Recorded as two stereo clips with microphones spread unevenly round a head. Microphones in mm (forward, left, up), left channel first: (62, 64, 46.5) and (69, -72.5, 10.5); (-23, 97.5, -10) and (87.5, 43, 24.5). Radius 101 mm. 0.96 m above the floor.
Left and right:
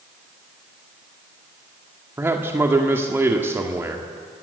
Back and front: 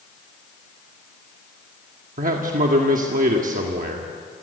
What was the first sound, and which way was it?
A man speaking, 15° right.